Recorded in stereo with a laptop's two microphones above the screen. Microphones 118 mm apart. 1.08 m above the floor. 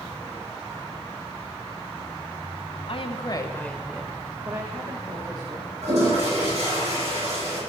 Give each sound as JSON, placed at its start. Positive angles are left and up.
{"t": 2.9, "sound": "a woman speaking", "side_deg": 60, "distance_m": 1.3}
{"t": 5.8, "sound": "a toilet flushing", "side_deg": -70, "distance_m": 7.0}